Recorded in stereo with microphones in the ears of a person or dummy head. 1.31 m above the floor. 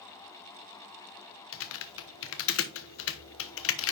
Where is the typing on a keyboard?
70° left (ahead or behind), 0.9 m.